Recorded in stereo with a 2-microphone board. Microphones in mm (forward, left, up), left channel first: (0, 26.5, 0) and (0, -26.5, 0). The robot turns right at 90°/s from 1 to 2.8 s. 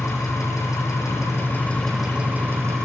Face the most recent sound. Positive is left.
turn(degrees=-105)